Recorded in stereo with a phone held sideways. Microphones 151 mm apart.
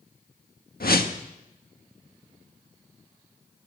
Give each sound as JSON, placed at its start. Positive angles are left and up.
{"t": 0.8, "sound": "a whoosh", "side_deg": 80, "distance_m": 1.4}